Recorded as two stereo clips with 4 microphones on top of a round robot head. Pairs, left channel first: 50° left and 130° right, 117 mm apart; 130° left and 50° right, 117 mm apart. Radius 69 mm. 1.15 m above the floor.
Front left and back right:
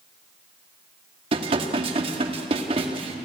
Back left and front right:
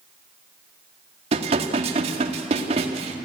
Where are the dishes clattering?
85° right, 1.8 m.